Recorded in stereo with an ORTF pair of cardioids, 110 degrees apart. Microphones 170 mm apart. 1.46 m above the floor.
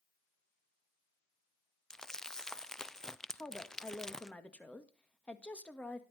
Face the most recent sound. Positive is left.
turn(degrees=5)